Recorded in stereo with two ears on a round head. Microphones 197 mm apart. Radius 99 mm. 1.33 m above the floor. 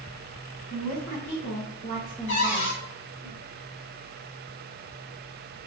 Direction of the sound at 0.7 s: 75° left (ahead or behind).